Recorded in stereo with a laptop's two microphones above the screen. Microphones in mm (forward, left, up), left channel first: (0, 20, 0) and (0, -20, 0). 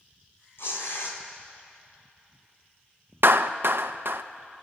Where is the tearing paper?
75° left (ahead or behind), 2.5 m.